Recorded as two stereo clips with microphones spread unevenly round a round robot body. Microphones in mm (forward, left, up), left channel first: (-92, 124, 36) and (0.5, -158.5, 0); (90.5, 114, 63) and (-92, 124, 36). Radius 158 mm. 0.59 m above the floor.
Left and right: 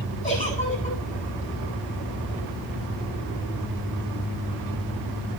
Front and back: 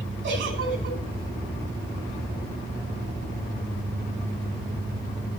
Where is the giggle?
175° left, 8.5 m.